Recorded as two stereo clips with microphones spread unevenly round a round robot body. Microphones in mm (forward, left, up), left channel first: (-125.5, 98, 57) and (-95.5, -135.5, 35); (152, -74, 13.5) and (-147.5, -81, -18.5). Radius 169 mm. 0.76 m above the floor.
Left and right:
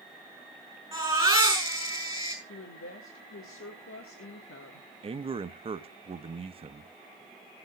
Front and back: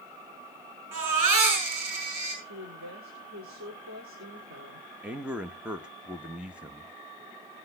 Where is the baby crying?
160° right, 8 m.